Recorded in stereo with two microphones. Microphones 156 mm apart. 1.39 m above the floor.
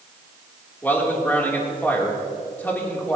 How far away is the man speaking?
About 3 m.